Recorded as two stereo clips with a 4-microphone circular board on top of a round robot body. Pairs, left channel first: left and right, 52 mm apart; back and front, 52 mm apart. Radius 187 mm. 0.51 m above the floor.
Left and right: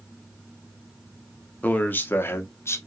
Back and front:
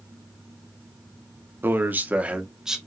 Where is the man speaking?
35° left, 1.9 m; by 2.8 s 80° left, 1.9 m.